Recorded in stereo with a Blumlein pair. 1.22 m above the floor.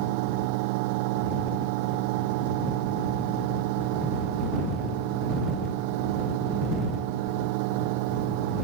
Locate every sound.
0.0 s a fan: 45° right